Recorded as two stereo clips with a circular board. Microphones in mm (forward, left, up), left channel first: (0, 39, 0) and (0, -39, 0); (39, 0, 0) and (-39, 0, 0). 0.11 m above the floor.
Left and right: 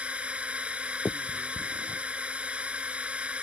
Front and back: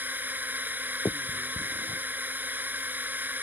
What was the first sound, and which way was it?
A drone, 150° right.